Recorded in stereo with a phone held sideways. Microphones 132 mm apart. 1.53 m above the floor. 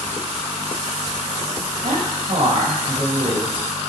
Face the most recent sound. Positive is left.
turn(degrees=-55)  # may be behind; listen again after turning